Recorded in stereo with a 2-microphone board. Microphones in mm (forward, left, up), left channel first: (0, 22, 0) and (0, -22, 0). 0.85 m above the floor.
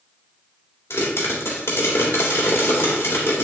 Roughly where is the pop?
Left.